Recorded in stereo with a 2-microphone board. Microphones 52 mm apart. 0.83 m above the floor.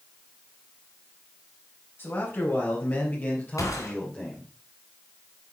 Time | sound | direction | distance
2.0 | a man speaking | 40° left (ahead or behind) | 4.5 m
3.6 | a gunshot | 75° left (ahead or behind) | 3 m